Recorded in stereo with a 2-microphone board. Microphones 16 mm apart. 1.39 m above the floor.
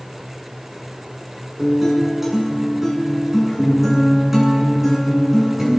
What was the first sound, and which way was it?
A guitar, 15° right (ahead or behind).